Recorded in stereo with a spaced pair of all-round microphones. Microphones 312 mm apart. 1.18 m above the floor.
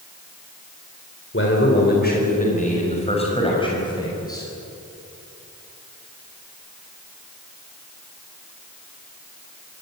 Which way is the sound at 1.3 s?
40° left (ahead or behind).